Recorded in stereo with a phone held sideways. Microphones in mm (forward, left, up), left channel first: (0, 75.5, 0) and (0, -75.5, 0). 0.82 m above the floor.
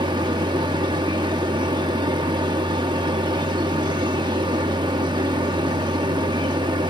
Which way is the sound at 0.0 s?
30° right (ahead or behind).